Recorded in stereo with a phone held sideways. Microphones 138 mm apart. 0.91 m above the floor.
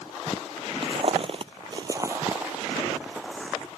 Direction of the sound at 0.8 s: 45° right (ahead or behind).